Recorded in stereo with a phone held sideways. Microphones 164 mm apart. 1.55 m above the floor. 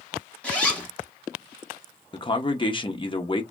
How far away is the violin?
I don't hear a violin.